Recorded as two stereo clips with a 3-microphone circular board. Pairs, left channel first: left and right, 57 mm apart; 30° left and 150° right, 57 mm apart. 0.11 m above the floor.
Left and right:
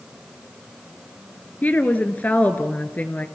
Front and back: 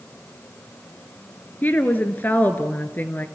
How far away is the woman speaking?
About 1.7 m.